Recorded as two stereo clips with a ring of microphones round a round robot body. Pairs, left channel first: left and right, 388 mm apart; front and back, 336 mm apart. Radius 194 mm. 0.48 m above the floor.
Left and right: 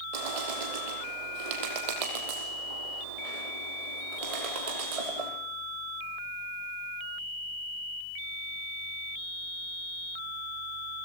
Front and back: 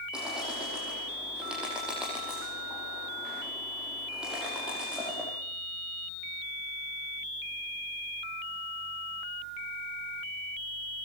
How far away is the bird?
About 6.5 m.